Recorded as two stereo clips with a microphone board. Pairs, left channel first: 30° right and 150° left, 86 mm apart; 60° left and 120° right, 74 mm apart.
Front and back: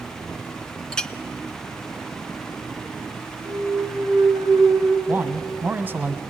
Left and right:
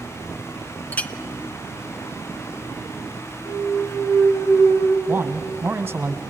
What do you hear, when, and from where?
0.9 s a clink: 40° left, 0.5 m
3.5 s a clunk: 100° left, 4 m
5.1 s a man speaking: 165° right, 1.4 m